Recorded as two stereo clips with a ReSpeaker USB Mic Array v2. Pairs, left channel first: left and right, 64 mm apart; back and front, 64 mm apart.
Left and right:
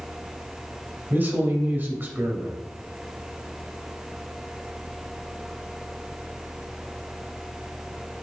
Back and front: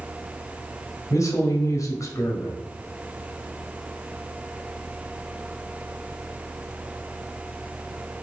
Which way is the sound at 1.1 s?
150° right.